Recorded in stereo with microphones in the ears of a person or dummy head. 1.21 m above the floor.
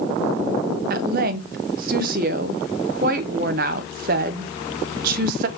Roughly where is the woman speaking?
Right.